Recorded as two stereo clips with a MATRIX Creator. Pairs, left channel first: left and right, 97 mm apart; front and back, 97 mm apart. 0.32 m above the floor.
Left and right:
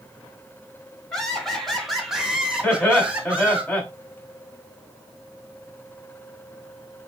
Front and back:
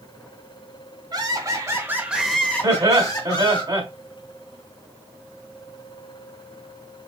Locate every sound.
1.1 s laughter: 175° left, 1.6 m; by 3.6 s 15° right, 1.7 m
2.6 s laughter: 160° left, 2.5 m